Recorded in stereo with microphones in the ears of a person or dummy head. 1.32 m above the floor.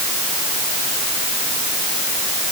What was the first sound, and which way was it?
Only background noise.